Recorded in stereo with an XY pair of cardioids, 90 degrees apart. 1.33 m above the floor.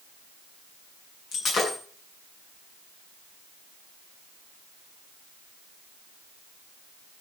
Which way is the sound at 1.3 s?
65° left.